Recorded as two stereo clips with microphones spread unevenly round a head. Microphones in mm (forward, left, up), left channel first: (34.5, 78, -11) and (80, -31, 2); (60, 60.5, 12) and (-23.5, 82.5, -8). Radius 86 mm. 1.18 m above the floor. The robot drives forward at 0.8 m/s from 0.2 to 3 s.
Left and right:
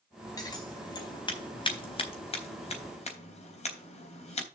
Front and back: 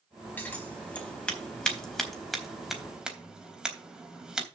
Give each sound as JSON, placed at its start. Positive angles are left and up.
{"t": 0.4, "sound": "scissors", "azimuth_deg": 50, "distance_m": 4.5}